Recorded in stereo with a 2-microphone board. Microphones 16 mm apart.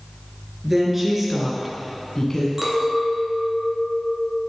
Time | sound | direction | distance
0.6 | a woman speaking | 20° right (ahead or behind) | 2.5 m
2.6 | a clink | 30° right (ahead or behind) | 1.4 m